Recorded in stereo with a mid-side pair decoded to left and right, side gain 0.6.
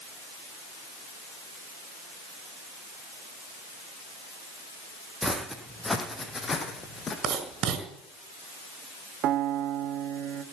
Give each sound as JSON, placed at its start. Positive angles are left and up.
{"t": 5.2, "sound": "footsteps", "azimuth_deg": 0, "distance_m": 3.5}
{"t": 7.2, "sound": "writing", "azimuth_deg": -55, "distance_m": 4.5}
{"t": 9.2, "sound": "a piano", "azimuth_deg": -60, "distance_m": 1.8}